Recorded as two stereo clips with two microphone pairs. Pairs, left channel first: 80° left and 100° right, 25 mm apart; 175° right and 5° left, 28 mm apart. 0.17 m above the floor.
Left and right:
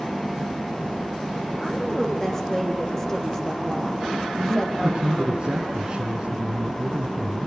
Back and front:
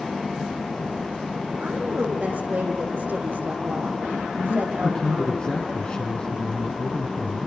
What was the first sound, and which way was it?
A woman speaking, 5° left.